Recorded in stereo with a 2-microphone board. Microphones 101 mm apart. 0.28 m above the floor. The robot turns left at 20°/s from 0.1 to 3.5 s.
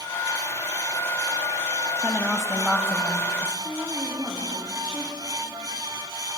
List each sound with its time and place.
2.0 s a woman speaking: 165° right, 1.4 m; by 3.5 s 165° left, 1.4 m
3.6 s a woman speaking: 10° right (ahead or behind), 9.5 m